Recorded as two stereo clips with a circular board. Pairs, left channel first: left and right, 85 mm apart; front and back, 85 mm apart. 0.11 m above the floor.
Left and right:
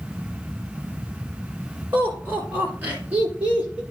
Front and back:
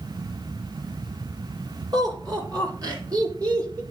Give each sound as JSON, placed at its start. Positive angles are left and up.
{"t": 1.9, "sound": "laughter", "azimuth_deg": -155, "distance_m": 3.5}